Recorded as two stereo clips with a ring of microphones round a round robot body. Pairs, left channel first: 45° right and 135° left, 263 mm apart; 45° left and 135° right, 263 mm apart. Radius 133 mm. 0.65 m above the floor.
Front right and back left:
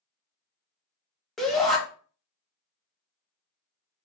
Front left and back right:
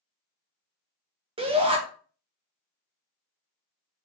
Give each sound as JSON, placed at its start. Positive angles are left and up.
{"t": 1.4, "sound": "a shout", "azimuth_deg": -130, "distance_m": 0.8}